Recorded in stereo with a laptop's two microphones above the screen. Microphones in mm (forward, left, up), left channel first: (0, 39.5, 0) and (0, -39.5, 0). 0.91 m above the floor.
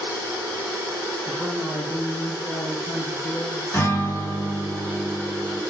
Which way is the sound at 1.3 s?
15° left (ahead or behind).